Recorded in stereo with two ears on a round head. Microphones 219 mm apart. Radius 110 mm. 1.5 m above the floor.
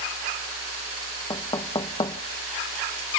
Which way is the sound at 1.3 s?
20° left (ahead or behind).